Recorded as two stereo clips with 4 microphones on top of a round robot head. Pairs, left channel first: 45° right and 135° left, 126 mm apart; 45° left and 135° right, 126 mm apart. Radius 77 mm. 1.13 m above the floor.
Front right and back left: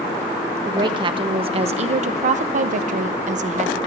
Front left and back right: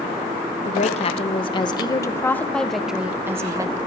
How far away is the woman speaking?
About 1.4 m.